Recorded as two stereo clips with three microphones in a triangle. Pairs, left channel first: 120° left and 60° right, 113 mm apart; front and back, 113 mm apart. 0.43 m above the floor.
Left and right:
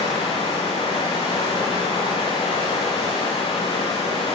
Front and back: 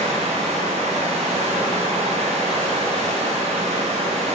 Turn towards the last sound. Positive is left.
turn(degrees=165)